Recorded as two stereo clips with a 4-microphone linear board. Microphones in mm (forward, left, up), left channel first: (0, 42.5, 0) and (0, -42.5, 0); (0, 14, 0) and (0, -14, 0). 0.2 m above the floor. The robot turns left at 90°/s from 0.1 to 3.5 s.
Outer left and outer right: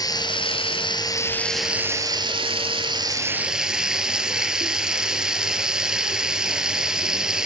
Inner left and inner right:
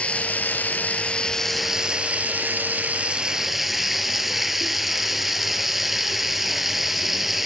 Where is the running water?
135° left, 1.5 m; by 7.5 s 170° right, 1.5 m.